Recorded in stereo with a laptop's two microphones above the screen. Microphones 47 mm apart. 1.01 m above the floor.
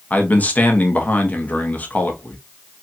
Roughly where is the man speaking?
Left.